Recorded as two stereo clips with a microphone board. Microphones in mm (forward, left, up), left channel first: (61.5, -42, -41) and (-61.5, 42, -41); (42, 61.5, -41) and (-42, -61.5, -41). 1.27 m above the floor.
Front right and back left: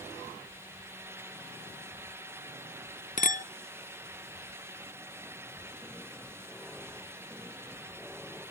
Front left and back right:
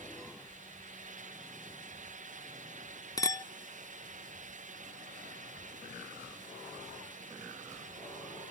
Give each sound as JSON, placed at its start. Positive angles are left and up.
{"t": 3.2, "sound": "a clink", "azimuth_deg": -10, "distance_m": 0.5}